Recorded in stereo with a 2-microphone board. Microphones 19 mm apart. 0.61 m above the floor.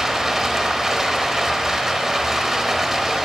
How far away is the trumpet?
No trumpet in this recording.